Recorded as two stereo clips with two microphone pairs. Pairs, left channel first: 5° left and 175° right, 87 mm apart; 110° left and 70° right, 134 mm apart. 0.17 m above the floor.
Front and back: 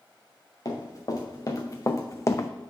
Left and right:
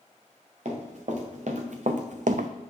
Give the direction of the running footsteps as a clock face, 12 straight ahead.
2 o'clock.